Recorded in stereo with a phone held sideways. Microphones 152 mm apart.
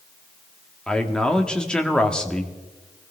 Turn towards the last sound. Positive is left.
turn(degrees=5)  # may be behind; listen again after turning